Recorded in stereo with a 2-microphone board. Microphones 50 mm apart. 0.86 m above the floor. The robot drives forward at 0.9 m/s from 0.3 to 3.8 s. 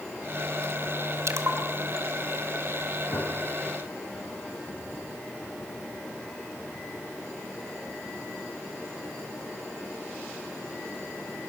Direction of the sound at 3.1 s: 70° left (ahead or behind).